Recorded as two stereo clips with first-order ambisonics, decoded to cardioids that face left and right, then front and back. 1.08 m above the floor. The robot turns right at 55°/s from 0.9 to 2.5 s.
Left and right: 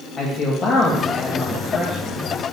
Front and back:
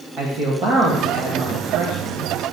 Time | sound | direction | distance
0.2 | a man speaking | 135° left | 1.7 m